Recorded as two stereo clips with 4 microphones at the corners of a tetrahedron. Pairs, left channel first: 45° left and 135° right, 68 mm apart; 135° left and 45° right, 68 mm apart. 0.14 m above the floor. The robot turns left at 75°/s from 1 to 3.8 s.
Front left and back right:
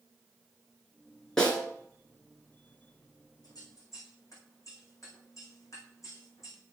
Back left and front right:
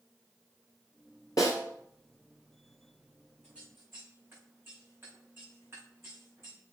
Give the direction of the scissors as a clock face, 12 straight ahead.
11 o'clock.